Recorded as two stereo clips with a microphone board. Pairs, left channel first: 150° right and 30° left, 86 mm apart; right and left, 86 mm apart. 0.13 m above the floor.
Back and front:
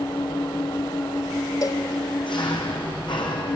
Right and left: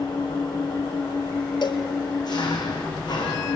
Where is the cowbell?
110° right, 1.5 m.